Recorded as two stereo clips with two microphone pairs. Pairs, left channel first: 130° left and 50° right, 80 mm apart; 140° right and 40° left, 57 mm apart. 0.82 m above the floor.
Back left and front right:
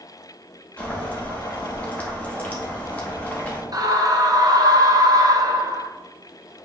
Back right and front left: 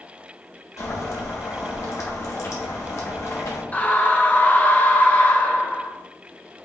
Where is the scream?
80° right, 0.6 m.